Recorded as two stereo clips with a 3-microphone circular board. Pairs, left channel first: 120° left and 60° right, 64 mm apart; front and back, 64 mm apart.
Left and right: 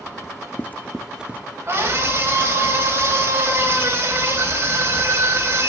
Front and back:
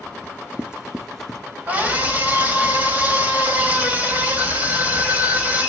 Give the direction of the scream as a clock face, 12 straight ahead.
4 o'clock.